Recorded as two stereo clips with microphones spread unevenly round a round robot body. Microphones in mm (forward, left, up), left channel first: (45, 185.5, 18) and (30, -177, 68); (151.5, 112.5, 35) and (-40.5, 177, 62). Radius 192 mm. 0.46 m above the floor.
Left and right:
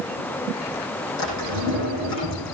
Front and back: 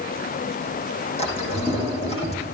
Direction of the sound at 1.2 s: 40° left.